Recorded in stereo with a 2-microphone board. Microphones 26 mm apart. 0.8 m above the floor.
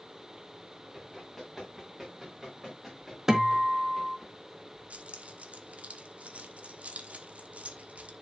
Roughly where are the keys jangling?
Right.